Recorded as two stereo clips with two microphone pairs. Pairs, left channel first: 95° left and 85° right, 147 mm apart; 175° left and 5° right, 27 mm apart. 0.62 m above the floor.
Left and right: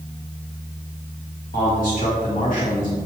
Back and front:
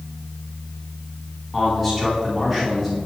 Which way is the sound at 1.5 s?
85° left.